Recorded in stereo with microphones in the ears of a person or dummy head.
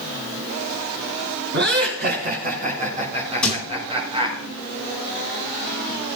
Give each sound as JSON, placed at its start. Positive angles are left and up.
{"t": 1.5, "sound": "laughter", "side_deg": -45, "distance_m": 4.0}
{"t": 3.4, "sound": "a thud", "side_deg": 15, "distance_m": 7.5}